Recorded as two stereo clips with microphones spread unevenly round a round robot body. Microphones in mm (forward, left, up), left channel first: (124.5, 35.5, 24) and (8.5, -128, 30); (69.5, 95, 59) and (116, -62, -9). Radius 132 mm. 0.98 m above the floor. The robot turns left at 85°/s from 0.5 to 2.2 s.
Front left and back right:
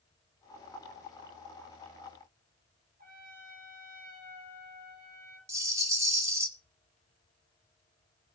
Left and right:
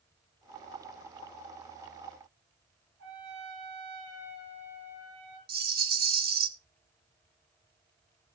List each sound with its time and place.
3.0 s a trumpet: 80° right, 4 m
5.5 s a rattle: 50° right, 1.4 m